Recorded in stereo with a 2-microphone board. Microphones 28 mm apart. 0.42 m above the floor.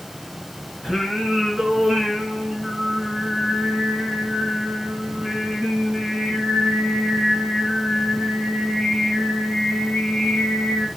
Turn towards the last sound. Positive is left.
turn(degrees=-10)  # may be behind; listen again after turning